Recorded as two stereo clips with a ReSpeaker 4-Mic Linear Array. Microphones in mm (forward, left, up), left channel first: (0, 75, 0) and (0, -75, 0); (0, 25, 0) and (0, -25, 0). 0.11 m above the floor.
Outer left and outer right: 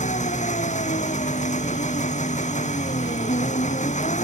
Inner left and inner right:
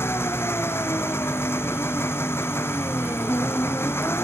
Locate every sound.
0.0 s an engine running: 55° left (ahead or behind)